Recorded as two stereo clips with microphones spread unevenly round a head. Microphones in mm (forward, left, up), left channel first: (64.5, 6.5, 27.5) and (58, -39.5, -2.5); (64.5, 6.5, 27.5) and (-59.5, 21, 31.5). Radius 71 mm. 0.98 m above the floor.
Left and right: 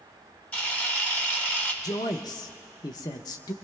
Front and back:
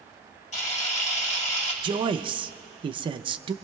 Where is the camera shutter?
30° left, 1.8 m.